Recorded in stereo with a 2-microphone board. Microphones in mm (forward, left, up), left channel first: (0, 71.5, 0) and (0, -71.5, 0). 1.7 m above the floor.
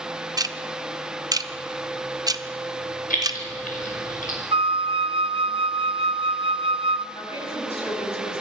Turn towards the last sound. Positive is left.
turn(degrees=45)  # may be behind; listen again after turning